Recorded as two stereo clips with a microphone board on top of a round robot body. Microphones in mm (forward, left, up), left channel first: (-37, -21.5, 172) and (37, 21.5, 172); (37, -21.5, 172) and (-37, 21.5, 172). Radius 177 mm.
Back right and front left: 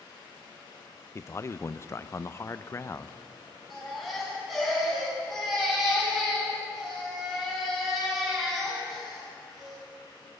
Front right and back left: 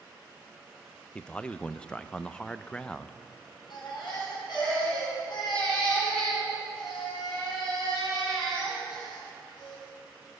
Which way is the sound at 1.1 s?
105° right.